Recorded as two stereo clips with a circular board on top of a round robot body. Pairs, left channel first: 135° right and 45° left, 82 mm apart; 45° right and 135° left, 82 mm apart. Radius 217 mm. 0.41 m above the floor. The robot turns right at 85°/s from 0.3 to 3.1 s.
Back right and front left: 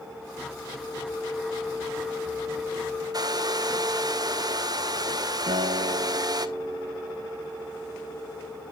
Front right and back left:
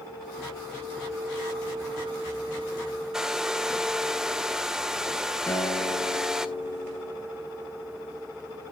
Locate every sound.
3.1 s a hair dryer: 55° left, 1.3 m
5.5 s a guitar: 20° left, 2.5 m